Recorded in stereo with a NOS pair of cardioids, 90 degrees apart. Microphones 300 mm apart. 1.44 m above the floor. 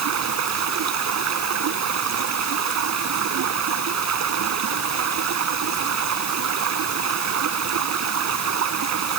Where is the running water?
60° right.